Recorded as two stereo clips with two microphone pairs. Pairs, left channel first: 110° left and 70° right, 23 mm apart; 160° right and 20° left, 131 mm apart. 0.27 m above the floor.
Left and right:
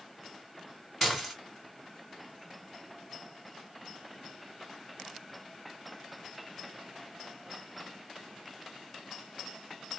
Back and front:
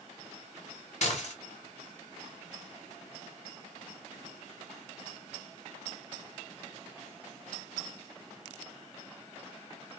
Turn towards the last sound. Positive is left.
turn(degrees=-160)